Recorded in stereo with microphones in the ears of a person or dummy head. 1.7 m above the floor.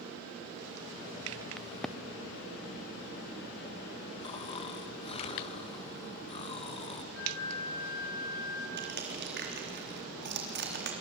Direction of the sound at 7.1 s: 70° left (ahead or behind).